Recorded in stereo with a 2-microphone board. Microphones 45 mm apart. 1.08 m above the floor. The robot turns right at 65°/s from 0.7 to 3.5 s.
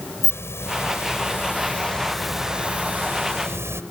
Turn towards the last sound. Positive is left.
turn(degrees=-95)